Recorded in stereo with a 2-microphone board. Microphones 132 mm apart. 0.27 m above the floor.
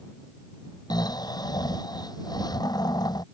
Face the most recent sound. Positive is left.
turn(degrees=30)  # may be behind; listen again after turning